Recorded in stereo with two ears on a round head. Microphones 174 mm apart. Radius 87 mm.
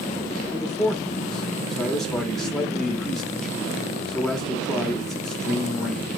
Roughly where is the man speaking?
Centre.